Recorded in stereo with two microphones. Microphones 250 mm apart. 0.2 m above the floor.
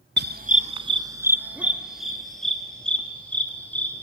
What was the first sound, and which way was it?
A dog barking, 45° right (ahead or behind).